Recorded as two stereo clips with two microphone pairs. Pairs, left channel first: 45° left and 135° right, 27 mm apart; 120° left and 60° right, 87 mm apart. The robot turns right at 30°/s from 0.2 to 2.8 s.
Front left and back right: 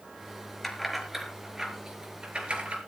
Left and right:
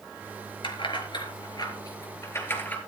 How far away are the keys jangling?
About 4.5 m.